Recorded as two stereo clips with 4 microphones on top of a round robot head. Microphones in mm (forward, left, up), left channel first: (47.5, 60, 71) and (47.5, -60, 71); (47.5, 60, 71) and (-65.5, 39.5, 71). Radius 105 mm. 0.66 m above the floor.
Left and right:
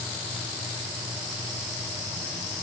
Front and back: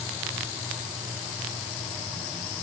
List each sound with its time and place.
Only background noise.